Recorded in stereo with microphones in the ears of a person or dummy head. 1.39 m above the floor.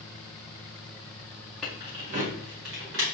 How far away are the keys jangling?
About 0.5 m.